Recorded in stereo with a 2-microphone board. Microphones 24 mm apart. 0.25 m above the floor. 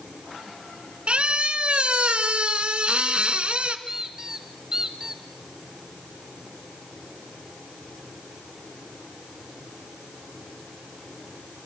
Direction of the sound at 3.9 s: 25° right (ahead or behind).